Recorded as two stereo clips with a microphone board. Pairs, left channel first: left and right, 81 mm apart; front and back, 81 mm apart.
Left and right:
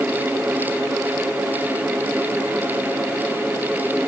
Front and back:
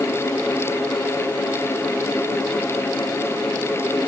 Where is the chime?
No chime in this recording.